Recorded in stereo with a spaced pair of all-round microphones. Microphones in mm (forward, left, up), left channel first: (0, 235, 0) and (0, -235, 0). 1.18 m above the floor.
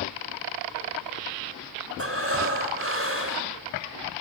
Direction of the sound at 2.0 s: 30° right (ahead or behind).